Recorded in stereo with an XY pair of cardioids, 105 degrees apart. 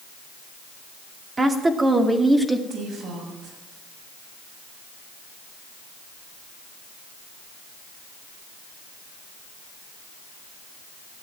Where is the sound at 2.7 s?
65° right, 7 m.